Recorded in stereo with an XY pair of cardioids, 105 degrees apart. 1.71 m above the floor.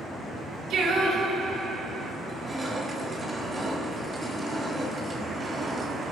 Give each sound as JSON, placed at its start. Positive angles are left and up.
{"t": 0.7, "sound": "singing", "azimuth_deg": -70, "distance_m": 3.0}
{"t": 2.2, "sound": "crushing", "azimuth_deg": -25, "distance_m": 4.0}